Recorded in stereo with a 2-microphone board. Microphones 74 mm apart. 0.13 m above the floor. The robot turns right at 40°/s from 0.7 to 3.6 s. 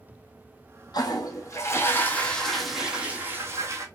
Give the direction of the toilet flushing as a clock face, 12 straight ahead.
8 o'clock.